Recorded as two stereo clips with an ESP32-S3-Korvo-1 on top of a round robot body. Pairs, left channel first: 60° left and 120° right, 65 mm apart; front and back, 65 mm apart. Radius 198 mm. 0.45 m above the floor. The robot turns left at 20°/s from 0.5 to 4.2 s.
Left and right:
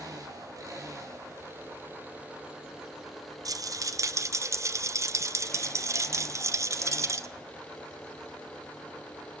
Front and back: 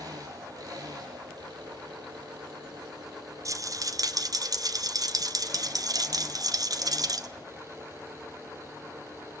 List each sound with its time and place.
0.0 s an engine running: 155° right, 8.5 m; by 9.4 s 130° left, 8.5 m
3.5 s a rattle: 145° right, 1.7 m; by 7.3 s 160° right, 1.7 m